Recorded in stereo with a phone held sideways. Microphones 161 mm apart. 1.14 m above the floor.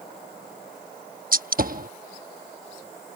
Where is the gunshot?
60° right (ahead or behind).